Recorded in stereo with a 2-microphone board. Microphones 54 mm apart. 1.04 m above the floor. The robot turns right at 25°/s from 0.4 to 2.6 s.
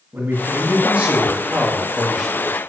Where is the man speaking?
50° right, 2 m; by 2.6 s 5° left, 2 m.